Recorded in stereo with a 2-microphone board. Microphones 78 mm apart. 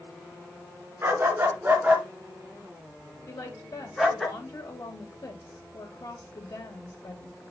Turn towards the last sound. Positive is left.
turn(degrees=60)  # may be behind; listen again after turning